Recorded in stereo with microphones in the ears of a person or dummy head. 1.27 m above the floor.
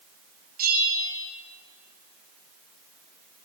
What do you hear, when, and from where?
0.6 s a bell: 50° right (ahead or behind), 8 m